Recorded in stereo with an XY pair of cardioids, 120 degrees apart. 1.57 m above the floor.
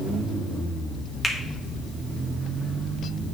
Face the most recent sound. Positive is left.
turn(degrees=15)